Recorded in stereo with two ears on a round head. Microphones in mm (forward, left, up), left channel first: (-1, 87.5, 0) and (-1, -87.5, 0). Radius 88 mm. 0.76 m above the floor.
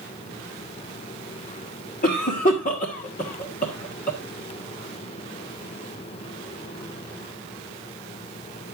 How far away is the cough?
About 1.6 m.